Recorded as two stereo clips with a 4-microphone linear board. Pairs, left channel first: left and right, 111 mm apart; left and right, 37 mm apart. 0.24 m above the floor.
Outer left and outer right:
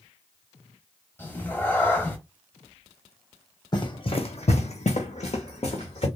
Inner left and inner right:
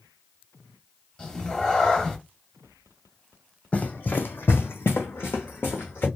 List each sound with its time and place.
1.2 s a cat meowing: 20° left (ahead or behind), 0.7 m
3.7 s running footsteps: 40° left (ahead or behind), 0.7 m; by 6.1 s 55° left (ahead or behind), 1.2 m